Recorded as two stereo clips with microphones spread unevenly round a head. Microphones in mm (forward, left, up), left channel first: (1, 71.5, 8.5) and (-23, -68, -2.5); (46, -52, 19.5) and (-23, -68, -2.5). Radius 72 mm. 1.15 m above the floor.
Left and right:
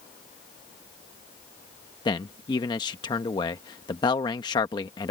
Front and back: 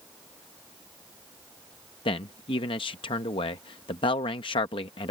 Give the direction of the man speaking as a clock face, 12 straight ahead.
11 o'clock.